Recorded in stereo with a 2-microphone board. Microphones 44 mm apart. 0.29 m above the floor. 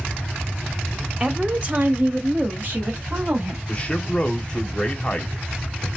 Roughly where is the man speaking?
Left.